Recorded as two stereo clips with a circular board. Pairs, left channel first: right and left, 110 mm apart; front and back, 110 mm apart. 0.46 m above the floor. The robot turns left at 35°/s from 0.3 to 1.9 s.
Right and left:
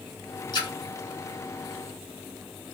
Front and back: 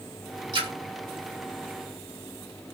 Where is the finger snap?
I don't hear a finger snap.